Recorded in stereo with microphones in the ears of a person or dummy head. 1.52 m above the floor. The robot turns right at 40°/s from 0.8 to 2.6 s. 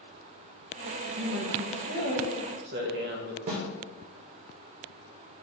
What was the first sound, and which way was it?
A man speaking, 120° right.